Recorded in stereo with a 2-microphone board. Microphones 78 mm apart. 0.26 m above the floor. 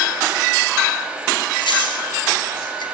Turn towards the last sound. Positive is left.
turn(degrees=70)  # may be behind; listen again after turning